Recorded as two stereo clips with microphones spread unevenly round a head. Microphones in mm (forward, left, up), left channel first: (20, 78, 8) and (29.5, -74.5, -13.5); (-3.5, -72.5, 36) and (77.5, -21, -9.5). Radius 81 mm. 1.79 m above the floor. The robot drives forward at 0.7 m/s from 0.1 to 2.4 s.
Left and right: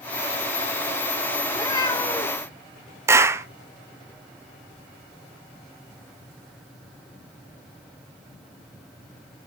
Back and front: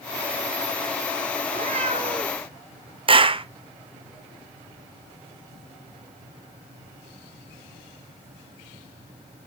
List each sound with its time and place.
1.4 s a cat meowing: 55° left, 1.2 m; by 2.5 s 115° left, 1.1 m
3.1 s a clap: 10° right, 0.8 m